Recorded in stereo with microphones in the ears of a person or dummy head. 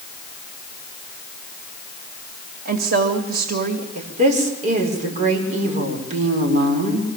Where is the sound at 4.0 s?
50° right (ahead or behind), 5.5 m.